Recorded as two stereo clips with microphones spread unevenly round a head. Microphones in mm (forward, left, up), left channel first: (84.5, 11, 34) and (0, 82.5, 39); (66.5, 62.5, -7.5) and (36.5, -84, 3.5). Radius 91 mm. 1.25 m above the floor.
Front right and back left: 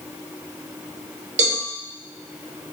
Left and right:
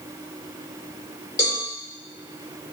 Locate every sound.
1.4 s a cowbell: 150° left, 2 m